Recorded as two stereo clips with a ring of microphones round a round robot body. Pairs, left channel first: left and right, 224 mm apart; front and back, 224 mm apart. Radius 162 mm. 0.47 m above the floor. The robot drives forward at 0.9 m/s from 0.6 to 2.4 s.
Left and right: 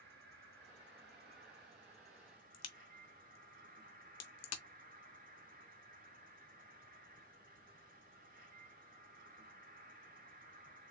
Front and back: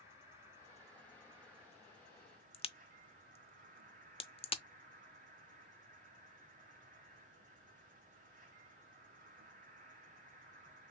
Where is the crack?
70° left, 0.8 m.